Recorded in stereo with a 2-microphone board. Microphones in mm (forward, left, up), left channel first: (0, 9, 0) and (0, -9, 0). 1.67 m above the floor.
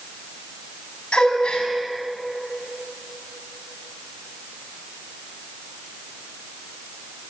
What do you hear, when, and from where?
1.1 s a gasp: 60° left (ahead or behind), 5 m